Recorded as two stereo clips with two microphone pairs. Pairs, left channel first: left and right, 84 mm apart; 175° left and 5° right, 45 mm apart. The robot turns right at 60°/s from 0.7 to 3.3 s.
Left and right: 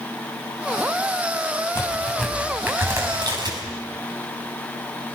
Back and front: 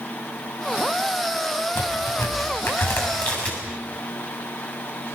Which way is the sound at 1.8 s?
145° left.